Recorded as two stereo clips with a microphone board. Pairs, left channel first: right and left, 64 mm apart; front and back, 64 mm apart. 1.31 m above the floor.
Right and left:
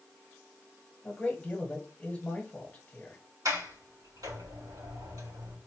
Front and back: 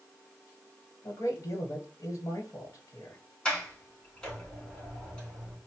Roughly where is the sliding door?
Left.